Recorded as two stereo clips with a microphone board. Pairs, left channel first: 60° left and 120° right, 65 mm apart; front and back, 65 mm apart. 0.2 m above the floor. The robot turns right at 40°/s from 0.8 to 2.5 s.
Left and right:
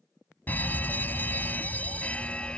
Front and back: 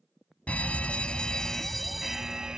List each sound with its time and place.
0.5 s a fire alarm: 45° left; by 2.6 s 110° left